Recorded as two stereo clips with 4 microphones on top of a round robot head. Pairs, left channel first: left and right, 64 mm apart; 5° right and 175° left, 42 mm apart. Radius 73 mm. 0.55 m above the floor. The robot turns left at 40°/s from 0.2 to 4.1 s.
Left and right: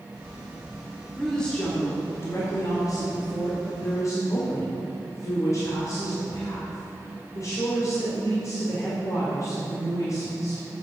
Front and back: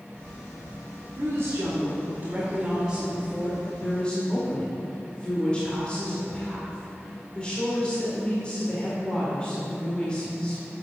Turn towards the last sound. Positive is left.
turn(degrees=60)